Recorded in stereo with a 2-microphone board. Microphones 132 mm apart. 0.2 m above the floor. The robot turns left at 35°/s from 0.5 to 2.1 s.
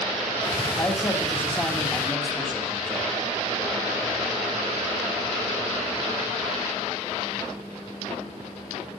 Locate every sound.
0.8 s a man speaking: 25° left (ahead or behind), 1.8 m; by 3.0 s 5° left (ahead or behind), 1.8 m